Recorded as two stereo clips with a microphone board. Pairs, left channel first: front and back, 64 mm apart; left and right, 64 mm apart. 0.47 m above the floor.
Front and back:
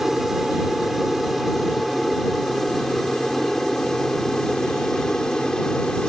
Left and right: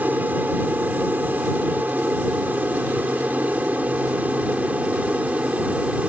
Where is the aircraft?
95° right; by 6.1 s 65° right.